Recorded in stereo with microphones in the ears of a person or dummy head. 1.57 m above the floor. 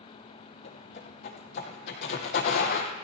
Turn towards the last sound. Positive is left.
turn(degrees=55)  # may be behind; listen again after turning